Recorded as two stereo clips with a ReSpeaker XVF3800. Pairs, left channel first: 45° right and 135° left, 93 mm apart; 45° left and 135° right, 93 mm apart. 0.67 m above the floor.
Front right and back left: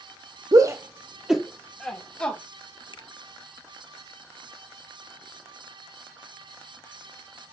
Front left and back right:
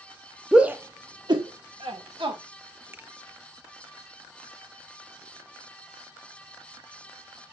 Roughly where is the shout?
Behind left.